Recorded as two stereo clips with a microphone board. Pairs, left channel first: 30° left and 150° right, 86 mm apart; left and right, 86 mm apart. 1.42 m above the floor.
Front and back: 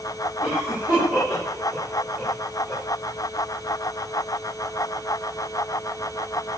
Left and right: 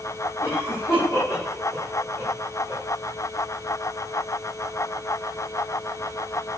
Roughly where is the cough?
Behind left.